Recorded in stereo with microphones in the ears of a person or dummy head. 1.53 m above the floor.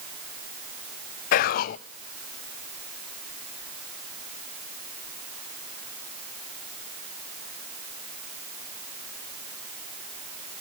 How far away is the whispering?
About 0.5 m.